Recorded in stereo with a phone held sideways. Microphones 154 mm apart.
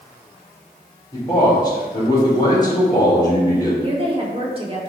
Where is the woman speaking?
35° right (ahead or behind), 2.0 m.